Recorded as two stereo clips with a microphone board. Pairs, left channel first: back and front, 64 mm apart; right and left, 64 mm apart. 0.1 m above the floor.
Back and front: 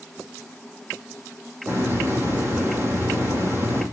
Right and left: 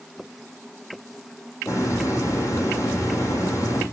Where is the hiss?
50° right, 4.5 m.